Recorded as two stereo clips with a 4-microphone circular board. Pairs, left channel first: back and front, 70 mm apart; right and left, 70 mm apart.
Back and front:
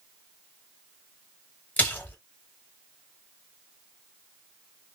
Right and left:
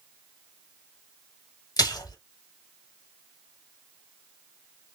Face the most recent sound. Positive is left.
turn(degrees=-115)